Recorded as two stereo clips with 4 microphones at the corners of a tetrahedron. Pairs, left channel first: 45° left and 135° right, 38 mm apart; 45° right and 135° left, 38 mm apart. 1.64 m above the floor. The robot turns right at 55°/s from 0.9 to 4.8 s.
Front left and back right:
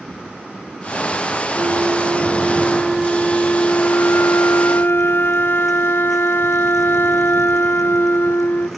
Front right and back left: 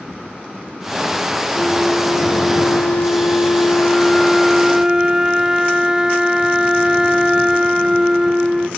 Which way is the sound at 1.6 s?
115° right.